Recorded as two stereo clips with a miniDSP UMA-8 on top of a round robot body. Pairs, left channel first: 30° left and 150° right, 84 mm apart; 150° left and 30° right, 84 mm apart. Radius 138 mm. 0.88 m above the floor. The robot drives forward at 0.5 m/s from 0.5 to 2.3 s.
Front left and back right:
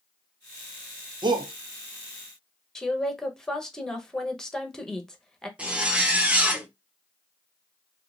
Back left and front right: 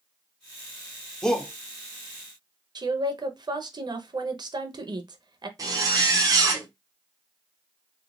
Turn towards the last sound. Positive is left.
turn(degrees=-75)